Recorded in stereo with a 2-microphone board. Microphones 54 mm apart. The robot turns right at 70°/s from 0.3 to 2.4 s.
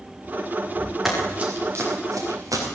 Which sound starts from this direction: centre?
Running footsteps, at 1.1 s.